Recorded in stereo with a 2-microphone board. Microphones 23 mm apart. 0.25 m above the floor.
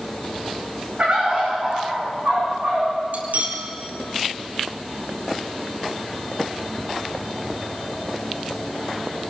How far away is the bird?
About 9.5 m.